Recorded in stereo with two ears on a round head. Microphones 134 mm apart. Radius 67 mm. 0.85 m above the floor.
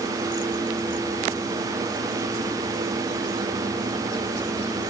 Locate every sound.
Only background noise.